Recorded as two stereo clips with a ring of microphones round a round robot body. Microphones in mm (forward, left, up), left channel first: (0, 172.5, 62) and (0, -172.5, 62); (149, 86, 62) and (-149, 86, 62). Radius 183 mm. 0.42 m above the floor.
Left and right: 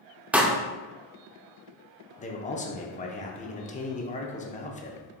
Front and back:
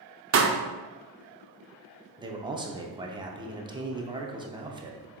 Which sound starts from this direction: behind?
A pop, at 0.3 s.